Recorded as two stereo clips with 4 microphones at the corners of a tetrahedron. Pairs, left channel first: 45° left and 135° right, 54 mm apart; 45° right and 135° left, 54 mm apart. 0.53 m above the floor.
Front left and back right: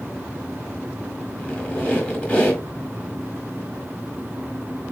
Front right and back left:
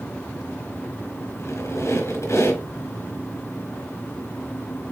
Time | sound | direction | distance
1.4 | a squeak | 35° right | 3.5 m